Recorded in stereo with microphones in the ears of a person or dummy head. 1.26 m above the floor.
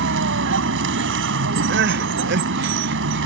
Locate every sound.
0.0 s a vehicle: 65° right (ahead or behind)
1.7 s crying: 65° right (ahead or behind)